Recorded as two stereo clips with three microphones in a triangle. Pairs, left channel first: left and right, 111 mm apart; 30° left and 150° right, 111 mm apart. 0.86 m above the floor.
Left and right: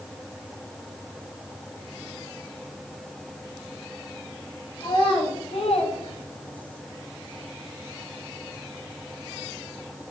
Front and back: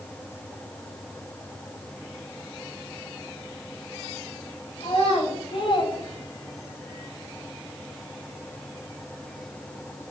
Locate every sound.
4.8 s a child speaking: 55° left, 1.4 m; by 6.8 s 140° left, 0.6 m